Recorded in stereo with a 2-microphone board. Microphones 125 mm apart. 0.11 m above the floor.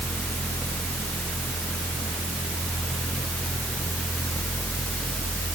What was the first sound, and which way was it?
Only background noise.